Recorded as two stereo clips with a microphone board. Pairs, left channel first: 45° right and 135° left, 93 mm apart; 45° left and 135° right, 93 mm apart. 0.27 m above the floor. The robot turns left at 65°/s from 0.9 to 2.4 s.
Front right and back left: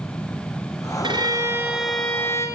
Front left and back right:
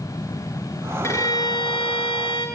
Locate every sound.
1.0 s a violin: 105° left, 4.5 m; by 2.5 s 15° left, 4.5 m